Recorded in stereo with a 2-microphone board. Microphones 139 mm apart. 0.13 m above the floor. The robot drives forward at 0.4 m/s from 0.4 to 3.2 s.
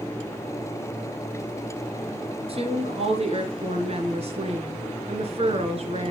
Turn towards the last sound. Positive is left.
turn(degrees=-50)  # may be behind; listen again after turning